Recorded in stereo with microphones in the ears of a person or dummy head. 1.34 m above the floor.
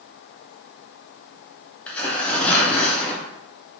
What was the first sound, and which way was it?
Tearing paper, 5° left (ahead or behind).